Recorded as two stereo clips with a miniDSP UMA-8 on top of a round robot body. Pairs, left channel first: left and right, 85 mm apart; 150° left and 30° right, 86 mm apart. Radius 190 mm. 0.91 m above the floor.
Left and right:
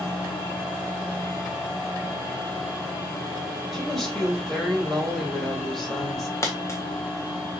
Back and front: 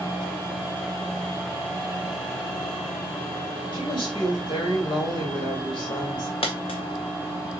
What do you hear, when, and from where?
3.7 s a woman speaking: 175° left, 4 m
6.4 s a dropped coin: 145° left, 0.6 m